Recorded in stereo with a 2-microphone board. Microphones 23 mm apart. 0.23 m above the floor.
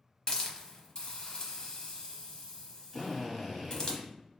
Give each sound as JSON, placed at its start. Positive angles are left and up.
{"t": 0.3, "sound": "a hiss", "side_deg": 35, "distance_m": 0.9}
{"t": 2.9, "sound": "a drill", "side_deg": 0, "distance_m": 1.1}